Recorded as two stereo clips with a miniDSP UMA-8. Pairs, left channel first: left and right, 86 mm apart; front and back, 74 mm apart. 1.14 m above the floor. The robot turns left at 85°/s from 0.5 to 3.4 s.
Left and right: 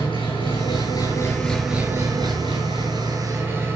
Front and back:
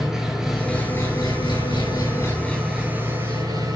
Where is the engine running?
95° left, 5.5 m; by 3.8 s 150° right, 5.5 m.